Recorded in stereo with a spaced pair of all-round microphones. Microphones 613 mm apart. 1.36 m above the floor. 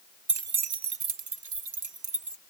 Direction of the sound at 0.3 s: 40° right (ahead or behind).